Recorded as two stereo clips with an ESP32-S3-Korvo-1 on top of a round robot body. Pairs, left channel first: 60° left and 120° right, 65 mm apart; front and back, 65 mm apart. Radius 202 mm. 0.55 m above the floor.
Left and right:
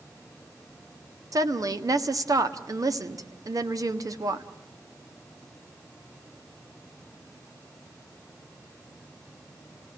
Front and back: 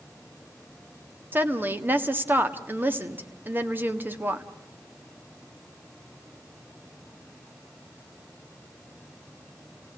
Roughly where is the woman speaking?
Behind right.